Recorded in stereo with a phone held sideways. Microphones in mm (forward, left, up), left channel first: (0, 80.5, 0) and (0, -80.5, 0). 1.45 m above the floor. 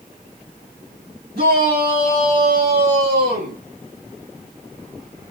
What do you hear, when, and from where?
1.4 s a shout: 85° right, 3 m